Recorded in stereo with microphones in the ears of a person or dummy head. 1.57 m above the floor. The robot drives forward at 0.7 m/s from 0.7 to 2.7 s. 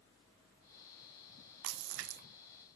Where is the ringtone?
No ringtone in this recording.